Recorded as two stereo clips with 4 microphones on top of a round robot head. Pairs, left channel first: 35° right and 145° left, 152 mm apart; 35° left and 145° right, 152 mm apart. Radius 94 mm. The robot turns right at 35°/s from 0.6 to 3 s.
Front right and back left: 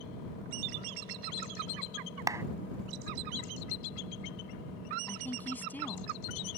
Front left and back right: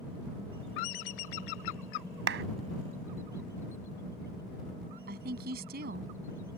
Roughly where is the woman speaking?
Behind right.